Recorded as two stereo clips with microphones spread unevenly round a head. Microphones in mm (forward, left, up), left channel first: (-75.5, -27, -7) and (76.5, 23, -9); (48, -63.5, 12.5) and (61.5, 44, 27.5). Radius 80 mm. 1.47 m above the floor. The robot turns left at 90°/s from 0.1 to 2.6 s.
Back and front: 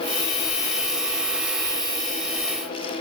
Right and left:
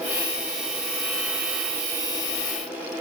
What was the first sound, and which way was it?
Only background noise.